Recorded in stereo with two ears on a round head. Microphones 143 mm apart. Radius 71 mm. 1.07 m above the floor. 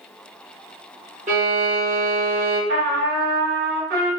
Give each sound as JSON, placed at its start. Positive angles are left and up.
{"t": 1.3, "sound": "a violin", "side_deg": -45, "distance_m": 1.4}
{"t": 2.7, "sound": "a trumpet", "side_deg": -70, "distance_m": 1.6}